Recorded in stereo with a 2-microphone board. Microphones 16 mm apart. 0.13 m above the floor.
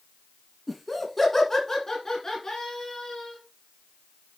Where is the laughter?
5° left (ahead or behind), 1.7 m; by 3.4 s 40° left (ahead or behind), 2.5 m.